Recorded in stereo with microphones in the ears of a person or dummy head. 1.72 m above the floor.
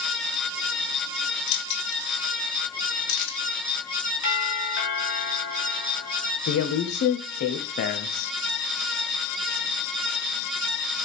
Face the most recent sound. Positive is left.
turn(degrees=55)  # may be behind; listen again after turning